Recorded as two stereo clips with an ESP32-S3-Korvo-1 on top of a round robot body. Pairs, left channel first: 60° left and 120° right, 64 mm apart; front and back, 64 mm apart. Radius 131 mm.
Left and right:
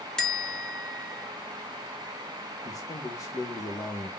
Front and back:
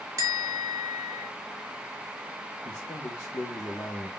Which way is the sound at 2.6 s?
45° left.